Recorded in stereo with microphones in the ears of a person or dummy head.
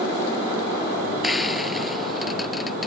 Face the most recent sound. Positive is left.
turn(degrees=-10)  # may be behind; listen again after turning